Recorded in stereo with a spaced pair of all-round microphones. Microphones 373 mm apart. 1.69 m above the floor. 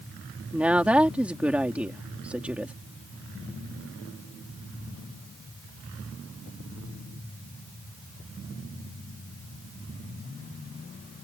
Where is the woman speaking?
5° right (ahead or behind).